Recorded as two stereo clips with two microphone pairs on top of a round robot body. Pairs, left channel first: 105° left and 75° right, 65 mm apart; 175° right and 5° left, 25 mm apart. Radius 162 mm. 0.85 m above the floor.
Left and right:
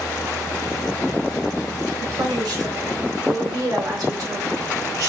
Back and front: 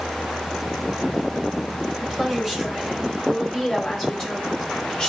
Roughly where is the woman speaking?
Right.